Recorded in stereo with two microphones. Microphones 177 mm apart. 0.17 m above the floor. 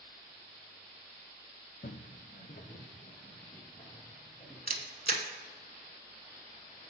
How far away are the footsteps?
About 0.6 m.